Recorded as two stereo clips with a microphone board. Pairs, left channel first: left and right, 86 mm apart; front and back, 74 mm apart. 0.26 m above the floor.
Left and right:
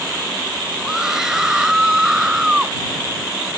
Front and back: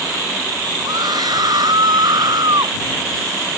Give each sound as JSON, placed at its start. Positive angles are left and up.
{"t": 0.8, "sound": "a scream", "azimuth_deg": -175}